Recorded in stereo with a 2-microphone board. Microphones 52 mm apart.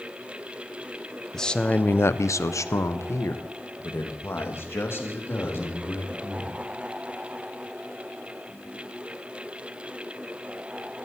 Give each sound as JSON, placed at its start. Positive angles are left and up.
{"t": 1.3, "sound": "a man speaking", "side_deg": 10, "distance_m": 0.8}